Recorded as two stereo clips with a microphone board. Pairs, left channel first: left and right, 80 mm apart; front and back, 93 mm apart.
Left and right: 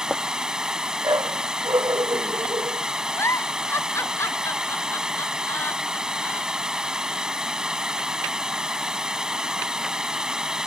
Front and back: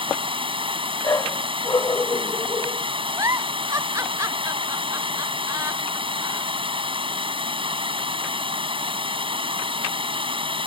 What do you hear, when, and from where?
0.0 s running water: 170° right
1.0 s a dog barking: 55° right
3.2 s a giggle: 135° left